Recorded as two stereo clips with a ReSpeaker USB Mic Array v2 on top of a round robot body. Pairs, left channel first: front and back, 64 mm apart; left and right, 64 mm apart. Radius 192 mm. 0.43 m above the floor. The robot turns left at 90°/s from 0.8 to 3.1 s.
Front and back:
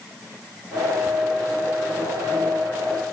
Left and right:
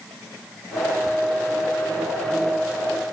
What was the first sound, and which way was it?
Only background noise.